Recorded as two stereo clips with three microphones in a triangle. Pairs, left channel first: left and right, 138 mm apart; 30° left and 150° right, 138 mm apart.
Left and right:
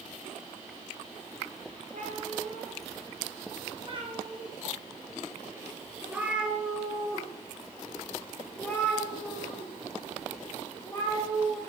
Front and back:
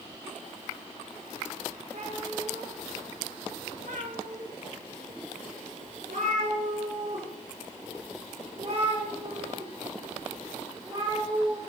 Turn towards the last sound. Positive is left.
turn(degrees=150)